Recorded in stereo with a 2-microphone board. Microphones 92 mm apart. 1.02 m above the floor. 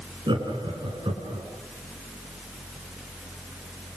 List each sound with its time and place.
0.3 s laughter: 60° right (ahead or behind), 10 m; by 1.4 s 65° right (ahead or behind), 9.5 m